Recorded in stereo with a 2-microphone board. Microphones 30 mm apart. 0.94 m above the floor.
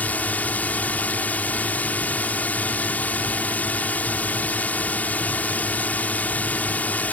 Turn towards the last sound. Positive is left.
turn(degrees=55)  # may be behind; listen again after turning